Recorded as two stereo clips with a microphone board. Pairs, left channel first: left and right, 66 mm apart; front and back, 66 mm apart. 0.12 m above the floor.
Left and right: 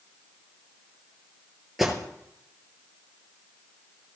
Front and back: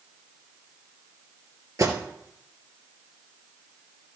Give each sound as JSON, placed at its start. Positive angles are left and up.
{"t": 1.8, "sound": "an alarm", "azimuth_deg": -175, "distance_m": 2.0}